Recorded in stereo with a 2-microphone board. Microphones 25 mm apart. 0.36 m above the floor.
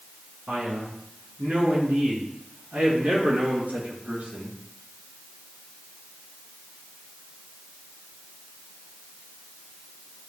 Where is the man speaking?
60° right (ahead or behind), 4 m; by 4.5 s 75° right (ahead or behind), 5 m.